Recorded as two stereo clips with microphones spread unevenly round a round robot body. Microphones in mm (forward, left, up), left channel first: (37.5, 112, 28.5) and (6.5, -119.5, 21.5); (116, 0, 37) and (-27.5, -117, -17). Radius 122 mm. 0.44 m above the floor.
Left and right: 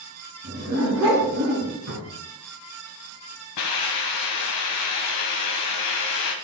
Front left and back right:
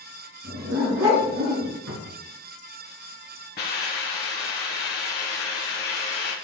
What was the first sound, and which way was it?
A dog barking, 135° right.